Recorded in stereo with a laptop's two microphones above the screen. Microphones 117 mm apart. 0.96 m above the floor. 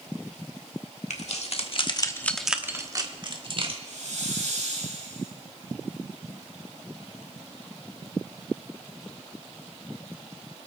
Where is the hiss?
75° right (ahead or behind), 3.5 m.